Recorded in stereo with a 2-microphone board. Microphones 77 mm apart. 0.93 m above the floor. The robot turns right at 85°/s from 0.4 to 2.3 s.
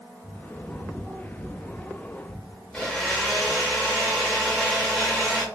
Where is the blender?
5° left (ahead or behind), 1.6 m.